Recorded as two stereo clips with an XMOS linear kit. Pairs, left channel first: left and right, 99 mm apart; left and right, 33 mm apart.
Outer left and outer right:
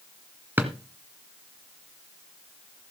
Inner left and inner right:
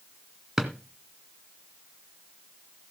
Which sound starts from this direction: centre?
A drawer, at 0.6 s.